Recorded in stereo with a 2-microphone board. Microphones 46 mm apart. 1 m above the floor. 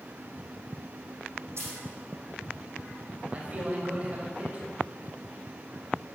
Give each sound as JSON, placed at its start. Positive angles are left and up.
{"t": 1.6, "sound": "a dropped coin", "side_deg": -70, "distance_m": 6.0}
{"t": 3.3, "sound": "a man speaking", "side_deg": -30, "distance_m": 4.0}